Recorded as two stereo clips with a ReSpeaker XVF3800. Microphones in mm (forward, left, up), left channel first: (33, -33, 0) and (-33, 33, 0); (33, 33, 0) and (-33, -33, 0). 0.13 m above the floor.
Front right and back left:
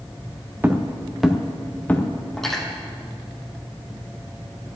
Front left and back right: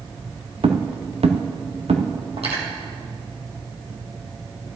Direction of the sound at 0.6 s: 155° right.